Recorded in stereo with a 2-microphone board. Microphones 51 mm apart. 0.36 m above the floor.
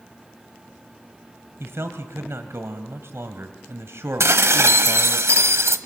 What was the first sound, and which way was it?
A man speaking, 55° right (ahead or behind).